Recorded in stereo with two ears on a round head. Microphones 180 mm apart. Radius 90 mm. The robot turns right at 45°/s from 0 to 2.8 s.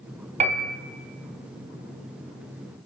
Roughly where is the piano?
Right.